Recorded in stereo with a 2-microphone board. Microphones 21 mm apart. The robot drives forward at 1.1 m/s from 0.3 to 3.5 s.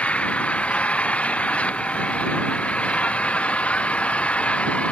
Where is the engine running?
90° left; by 4.9 s 85° left.